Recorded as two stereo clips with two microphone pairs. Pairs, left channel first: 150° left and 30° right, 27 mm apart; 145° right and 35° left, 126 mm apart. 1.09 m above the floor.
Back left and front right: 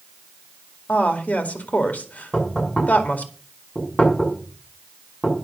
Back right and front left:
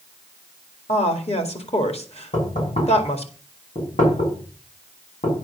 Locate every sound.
0.9 s a woman speaking: straight behind, 2 m
2.3 s knocking: 140° right, 6 m